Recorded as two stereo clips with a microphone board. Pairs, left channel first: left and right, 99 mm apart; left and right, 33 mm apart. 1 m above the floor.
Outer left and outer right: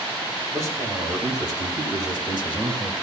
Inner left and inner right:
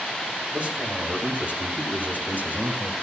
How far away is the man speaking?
About 5.5 m.